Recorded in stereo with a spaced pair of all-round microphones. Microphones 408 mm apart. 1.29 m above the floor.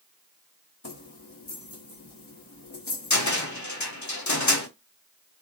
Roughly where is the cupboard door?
Left.